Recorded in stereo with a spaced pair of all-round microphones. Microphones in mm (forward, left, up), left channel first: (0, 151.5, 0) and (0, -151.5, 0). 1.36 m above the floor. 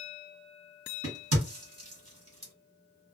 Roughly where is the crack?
Right.